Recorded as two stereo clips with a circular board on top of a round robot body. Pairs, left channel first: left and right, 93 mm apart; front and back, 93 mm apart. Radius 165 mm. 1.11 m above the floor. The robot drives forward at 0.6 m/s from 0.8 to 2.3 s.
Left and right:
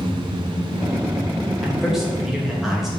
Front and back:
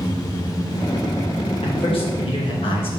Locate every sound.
1.6 s a man speaking: 5° right, 3 m